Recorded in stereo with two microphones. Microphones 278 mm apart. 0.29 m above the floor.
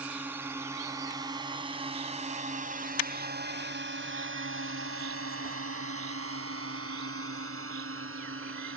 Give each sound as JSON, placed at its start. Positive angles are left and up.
{"t": 0.0, "sound": "a drone", "side_deg": -5}